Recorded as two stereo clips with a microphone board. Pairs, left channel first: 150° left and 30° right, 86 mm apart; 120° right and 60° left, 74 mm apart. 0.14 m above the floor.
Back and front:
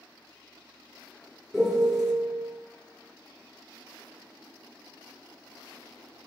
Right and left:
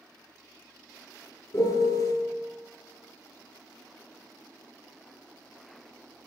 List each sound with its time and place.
1.5 s a piano: 115° right, 0.9 m